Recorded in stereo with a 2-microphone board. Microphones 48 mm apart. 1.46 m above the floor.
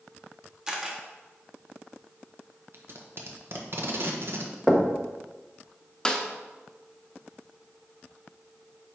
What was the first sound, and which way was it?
A camera shutter, 15° right (ahead or behind).